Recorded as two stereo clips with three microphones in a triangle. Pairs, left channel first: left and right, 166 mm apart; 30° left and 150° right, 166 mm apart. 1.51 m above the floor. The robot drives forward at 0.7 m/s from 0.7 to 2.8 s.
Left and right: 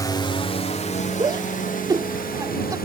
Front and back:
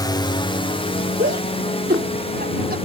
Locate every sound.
0.0 s a drone: 55° left; by 2.9 s 80° left
1.2 s a shout: 155° right; by 2.8 s 160° right